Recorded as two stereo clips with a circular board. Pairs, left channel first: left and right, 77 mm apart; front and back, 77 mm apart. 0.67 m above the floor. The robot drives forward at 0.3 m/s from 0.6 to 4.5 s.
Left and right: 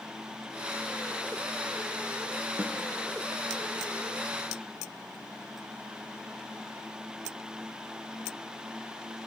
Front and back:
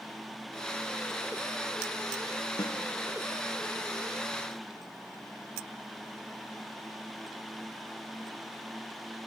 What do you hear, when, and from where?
2.6 s a snare drum: 20° right, 1.5 m